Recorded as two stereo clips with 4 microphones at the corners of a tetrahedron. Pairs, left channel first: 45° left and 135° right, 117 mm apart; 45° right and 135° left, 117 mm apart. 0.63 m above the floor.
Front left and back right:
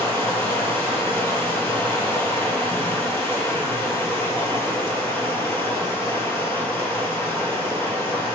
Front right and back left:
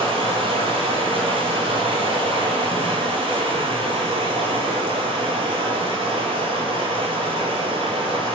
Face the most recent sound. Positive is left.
turn(degrees=110)